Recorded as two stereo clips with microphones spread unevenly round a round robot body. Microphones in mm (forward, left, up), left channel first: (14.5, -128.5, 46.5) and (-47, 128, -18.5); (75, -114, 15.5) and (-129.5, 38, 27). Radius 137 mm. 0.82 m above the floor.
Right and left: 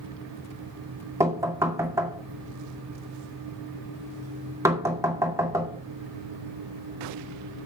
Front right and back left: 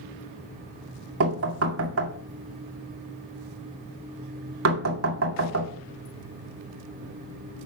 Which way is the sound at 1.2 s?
Straight behind.